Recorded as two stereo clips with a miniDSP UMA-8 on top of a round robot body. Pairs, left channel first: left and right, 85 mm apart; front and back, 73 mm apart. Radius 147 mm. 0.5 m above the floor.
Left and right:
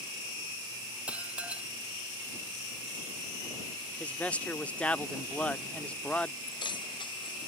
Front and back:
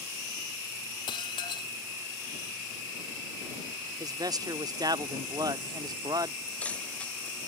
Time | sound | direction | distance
1.1 | dishes clattering | 15° right | ?
4.0 | a man speaking | 165° left | ?
6.5 | keys jangling | 70° left | ?